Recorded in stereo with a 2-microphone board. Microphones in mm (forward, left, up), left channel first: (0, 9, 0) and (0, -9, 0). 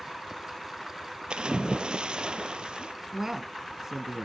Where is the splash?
70° right (ahead or behind), 0.7 m.